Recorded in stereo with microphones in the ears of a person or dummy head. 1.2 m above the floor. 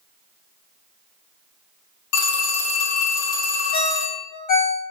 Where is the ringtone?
50° left (ahead or behind), 0.7 m.